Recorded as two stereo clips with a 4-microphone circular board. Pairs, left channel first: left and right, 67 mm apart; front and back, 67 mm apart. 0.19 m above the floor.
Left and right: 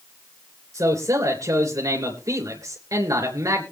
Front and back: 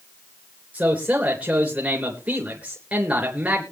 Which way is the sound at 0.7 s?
115° right.